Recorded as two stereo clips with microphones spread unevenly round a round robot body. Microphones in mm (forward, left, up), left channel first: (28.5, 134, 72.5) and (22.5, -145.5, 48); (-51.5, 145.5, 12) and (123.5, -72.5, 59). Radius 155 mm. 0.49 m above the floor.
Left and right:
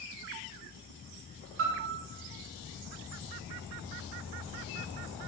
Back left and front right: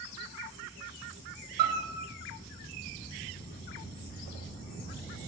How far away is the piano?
About 0.7 m.